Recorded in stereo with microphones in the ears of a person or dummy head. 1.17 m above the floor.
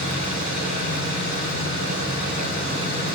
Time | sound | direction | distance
0.0 | an engine running | 50° right (ahead or behind) | 6 m